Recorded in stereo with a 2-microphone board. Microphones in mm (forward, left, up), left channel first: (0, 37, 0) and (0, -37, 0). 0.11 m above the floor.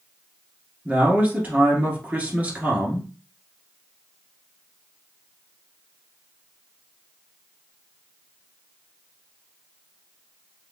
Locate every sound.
0.8 s a man speaking: 20° right (ahead or behind), 1.6 m